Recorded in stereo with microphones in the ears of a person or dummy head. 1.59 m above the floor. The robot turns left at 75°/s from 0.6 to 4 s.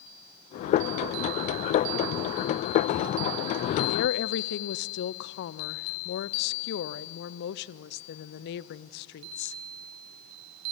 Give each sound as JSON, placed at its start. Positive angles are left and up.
{"t": 3.9, "sound": "a woman speaking", "side_deg": 65, "distance_m": 0.7}